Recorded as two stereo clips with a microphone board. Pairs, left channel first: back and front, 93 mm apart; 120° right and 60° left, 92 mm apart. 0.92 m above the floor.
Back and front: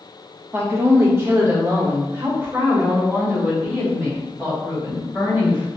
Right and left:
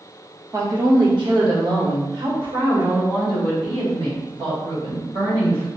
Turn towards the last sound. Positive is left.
turn(degrees=65)